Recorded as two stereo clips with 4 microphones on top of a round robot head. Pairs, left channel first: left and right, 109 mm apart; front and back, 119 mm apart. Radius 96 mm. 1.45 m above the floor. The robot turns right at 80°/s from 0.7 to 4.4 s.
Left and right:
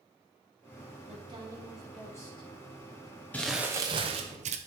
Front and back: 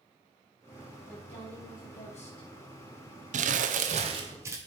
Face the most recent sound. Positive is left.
turn(degrees=-105)